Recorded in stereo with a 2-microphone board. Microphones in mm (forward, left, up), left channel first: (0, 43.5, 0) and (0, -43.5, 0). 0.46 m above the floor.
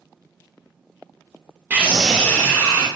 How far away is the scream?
About 0.9 m.